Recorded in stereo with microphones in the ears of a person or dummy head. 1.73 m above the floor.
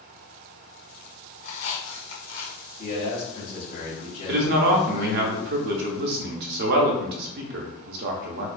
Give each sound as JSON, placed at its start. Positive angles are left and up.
{"t": 1.4, "sound": "a squeak", "side_deg": 60, "distance_m": 1.1}
{"t": 2.8, "sound": "a man speaking", "side_deg": 45, "distance_m": 1.7}
{"t": 4.3, "sound": "a man speaking", "side_deg": -55, "distance_m": 0.6}